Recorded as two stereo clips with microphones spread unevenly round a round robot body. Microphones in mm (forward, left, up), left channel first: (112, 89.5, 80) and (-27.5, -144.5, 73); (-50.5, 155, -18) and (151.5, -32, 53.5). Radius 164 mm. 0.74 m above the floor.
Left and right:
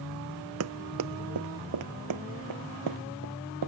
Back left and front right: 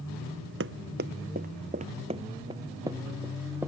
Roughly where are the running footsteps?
Right.